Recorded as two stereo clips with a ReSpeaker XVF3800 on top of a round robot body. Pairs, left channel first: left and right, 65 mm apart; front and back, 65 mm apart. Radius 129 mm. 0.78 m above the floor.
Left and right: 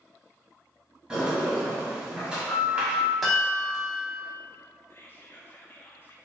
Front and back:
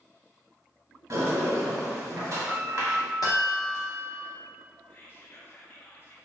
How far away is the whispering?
About 0.5 m.